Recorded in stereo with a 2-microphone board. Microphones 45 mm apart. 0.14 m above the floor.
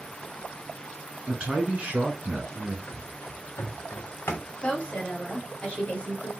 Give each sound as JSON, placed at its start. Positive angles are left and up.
{"t": 1.3, "sound": "a man speaking", "side_deg": -25, "distance_m": 1.4}
{"t": 2.9, "sound": "running footsteps", "side_deg": 45, "distance_m": 1.5}
{"t": 4.6, "sound": "a woman speaking", "side_deg": 30, "distance_m": 1.5}